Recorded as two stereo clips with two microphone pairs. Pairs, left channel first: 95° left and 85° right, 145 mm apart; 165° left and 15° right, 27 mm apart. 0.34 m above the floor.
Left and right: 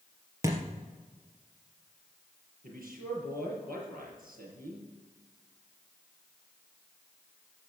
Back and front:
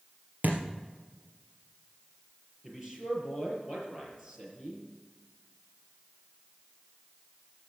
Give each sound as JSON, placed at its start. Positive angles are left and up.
{"t": 0.4, "sound": "a thud", "azimuth_deg": -15, "distance_m": 2.5}
{"t": 2.6, "sound": "a man speaking", "azimuth_deg": -85, "distance_m": 6.0}